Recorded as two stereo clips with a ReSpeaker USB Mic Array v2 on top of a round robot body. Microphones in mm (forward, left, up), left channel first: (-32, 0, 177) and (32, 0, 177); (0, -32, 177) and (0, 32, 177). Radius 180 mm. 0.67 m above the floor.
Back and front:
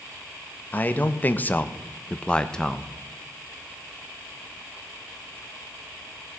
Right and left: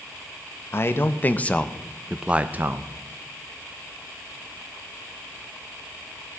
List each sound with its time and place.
0.7 s a man speaking: 125° right, 1.1 m; by 2.9 s 100° left, 0.9 m